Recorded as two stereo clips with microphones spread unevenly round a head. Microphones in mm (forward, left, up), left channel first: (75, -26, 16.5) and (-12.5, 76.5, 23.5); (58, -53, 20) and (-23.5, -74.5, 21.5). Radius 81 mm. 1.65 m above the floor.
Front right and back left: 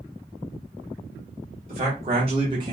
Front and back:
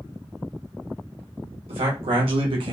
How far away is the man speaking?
About 1.6 m.